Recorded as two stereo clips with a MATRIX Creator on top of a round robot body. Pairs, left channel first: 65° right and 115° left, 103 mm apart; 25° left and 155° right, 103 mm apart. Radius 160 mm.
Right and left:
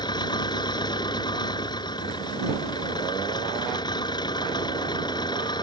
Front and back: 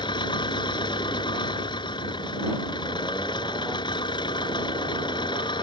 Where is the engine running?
20° right.